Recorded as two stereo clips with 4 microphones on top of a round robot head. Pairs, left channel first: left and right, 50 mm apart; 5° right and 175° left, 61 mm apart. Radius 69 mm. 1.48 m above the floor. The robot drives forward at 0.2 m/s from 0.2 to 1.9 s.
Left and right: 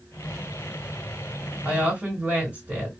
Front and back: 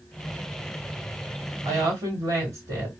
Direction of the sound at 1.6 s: 150° right.